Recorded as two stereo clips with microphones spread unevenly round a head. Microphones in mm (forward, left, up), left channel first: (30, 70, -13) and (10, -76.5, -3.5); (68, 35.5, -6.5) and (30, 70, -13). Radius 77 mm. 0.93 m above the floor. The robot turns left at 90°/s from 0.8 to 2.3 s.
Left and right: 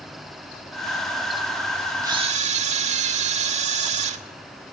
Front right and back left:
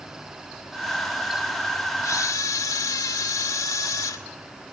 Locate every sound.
2.0 s a camera shutter: 30° right, 2 m; by 4.2 s 55° right, 2 m